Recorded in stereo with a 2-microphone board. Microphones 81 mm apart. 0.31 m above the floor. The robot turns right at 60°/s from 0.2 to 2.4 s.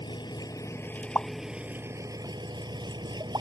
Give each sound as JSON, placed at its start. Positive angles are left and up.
{"t": 0.0, "sound": "an engine running", "azimuth_deg": 110}
{"t": 1.1, "sound": "a pop", "side_deg": 30}